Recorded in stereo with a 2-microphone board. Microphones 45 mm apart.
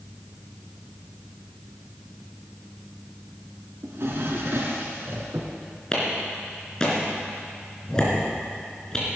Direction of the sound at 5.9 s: 15° left (ahead or behind).